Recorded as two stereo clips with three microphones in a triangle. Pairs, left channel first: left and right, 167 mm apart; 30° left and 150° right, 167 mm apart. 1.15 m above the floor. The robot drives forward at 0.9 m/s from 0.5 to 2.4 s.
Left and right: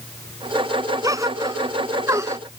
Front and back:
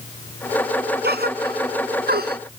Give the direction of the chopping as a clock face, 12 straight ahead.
No chopping in this recording.